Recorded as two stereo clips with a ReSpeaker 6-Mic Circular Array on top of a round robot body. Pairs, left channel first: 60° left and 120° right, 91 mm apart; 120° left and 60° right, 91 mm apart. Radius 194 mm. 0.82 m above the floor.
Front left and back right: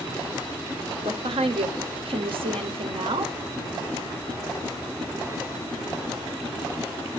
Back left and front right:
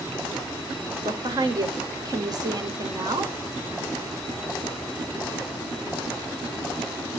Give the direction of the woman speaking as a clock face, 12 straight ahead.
4 o'clock.